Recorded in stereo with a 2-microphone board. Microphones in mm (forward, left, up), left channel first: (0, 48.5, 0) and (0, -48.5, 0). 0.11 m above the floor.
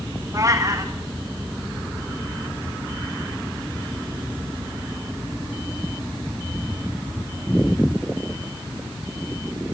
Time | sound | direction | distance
0.3 | a cat meowing | 35° right (ahead or behind) | 2 m